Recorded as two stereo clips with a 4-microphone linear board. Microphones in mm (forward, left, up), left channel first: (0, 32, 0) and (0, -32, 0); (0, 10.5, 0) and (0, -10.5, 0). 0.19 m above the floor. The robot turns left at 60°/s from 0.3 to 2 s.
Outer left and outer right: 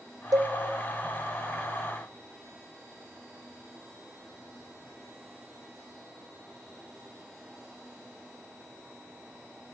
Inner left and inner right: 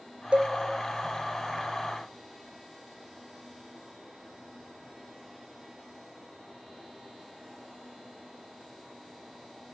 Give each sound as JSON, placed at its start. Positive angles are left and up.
{"t": 0.3, "sound": "a cowbell", "side_deg": -80, "distance_m": 0.6}